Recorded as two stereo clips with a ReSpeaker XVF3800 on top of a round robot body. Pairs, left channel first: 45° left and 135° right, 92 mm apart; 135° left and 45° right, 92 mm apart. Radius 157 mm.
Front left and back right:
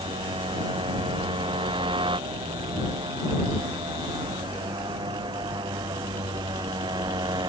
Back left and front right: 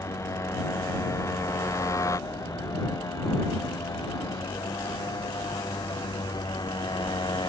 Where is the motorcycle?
165° right; by 7.5 s straight behind.